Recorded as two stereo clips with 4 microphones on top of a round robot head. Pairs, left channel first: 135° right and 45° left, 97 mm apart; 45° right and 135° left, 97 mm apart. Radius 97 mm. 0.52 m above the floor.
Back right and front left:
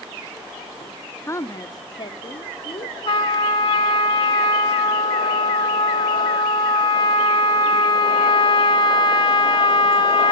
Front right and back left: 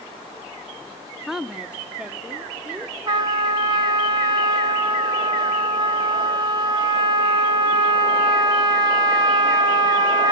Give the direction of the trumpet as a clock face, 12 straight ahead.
6 o'clock.